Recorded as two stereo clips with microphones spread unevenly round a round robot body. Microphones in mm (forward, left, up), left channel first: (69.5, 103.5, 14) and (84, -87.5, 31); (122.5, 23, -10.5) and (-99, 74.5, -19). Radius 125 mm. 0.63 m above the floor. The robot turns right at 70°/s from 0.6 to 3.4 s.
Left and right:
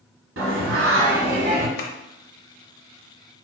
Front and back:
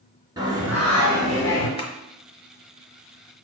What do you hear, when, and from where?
0.4 s singing: 115° right, 1.2 m; by 1.7 s 40° right, 1.2 m
1.8 s tapping: 55° left, 1.0 m; by 1.9 s 60° left, 1.0 m